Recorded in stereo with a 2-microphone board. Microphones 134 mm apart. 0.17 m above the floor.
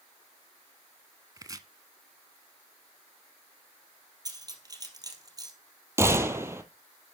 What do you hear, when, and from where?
1.4 s chopping: 30° right (ahead or behind), 0.8 m
4.2 s cutlery clinking: 30° right (ahead or behind), 2.5 m
6.0 s a gunshot: 20° right (ahead or behind), 1.3 m